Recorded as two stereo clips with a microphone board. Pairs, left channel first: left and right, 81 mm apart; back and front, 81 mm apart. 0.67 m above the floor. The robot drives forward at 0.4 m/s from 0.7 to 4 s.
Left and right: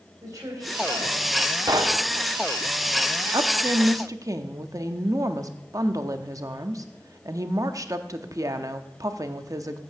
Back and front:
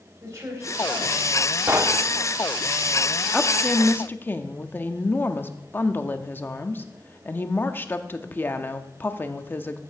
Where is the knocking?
55° right, 0.9 m; by 2.0 s 65° right, 0.8 m.